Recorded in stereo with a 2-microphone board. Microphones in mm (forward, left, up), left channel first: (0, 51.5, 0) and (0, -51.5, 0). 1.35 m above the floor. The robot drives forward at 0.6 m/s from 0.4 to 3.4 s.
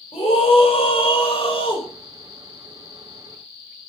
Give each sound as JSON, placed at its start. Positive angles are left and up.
{"t": 0.1, "sound": "a scream", "side_deg": 70, "distance_m": 6.0}